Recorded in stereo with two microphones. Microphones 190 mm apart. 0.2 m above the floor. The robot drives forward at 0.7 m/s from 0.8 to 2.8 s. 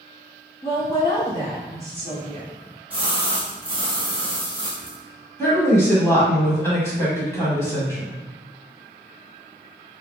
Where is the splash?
10° right (ahead or behind), 1.9 m.